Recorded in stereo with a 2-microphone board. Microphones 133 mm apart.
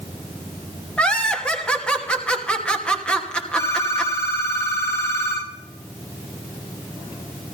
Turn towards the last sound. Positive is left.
turn(degrees=20)  # may be behind; listen again after turning